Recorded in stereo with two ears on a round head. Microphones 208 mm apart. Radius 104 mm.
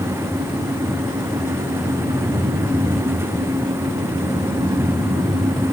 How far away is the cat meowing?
I don't hear a cat meowing.